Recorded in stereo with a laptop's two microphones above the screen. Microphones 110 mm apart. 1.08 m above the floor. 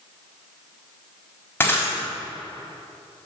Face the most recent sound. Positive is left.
turn(degrees=20)  # may be behind; listen again after turning